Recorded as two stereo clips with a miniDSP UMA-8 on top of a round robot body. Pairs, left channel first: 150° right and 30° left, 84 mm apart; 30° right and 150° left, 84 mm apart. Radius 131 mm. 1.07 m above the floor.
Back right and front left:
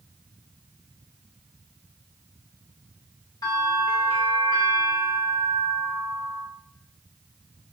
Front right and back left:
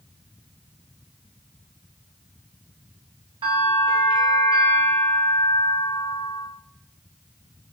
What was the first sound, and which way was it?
A bell, 170° left.